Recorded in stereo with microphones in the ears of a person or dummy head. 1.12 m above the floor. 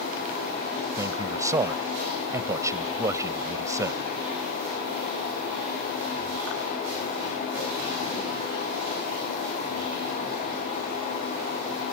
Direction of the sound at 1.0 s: 20° right (ahead or behind).